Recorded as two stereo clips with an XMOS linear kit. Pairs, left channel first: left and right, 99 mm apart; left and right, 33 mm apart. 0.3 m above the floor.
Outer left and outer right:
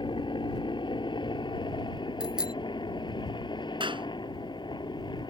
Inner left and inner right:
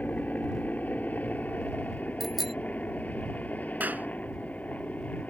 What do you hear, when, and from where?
0.0 s a helicopter: 60° left (ahead or behind); by 5.3 s 55° left (ahead or behind)
2.2 s a bicycle bell: 10° right (ahead or behind)
3.8 s a clap: 65° right (ahead or behind)